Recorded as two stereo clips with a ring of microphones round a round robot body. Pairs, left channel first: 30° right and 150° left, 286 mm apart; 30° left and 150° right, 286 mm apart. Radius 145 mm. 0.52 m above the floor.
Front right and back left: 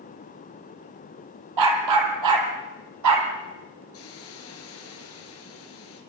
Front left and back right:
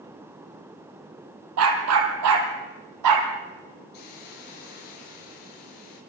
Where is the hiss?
15° left, 7 m.